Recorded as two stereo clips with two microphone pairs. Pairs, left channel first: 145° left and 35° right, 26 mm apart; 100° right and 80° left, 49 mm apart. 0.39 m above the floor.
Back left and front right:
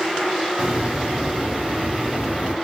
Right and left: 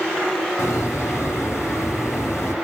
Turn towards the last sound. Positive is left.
turn(degrees=-80)